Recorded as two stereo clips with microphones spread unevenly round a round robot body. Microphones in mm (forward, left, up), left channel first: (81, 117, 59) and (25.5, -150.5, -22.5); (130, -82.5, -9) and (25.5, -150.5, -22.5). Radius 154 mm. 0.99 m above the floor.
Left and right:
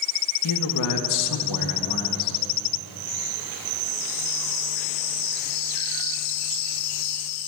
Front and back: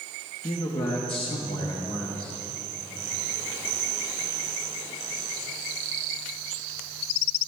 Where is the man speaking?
90° left, 1.1 m.